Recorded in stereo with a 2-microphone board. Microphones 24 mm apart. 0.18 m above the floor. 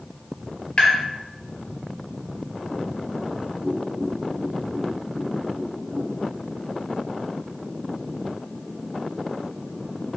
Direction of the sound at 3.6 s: 40° right (ahead or behind).